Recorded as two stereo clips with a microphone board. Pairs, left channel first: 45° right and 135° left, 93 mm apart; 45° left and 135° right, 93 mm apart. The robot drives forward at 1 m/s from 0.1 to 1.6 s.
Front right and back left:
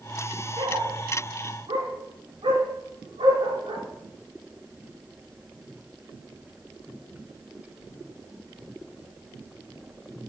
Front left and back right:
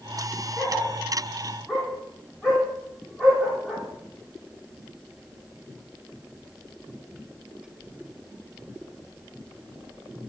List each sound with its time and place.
0.6 s a dog barking: 135° left, 8.5 m; by 3.9 s 140° left, 9.5 m